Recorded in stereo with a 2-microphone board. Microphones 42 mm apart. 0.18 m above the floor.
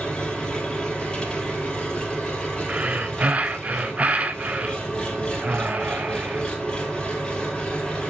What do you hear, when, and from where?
0.0 s an engine running: 20° left (ahead or behind), 3.5 m
2.7 s breathing: 30° right (ahead or behind), 0.6 m